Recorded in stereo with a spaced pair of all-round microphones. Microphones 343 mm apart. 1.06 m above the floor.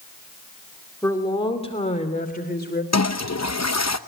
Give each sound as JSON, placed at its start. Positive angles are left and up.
{"t": 1.0, "sound": "a woman speaking", "side_deg": 10, "distance_m": 2.5}
{"t": 2.9, "sound": "a toilet flushing", "side_deg": 50, "distance_m": 0.8}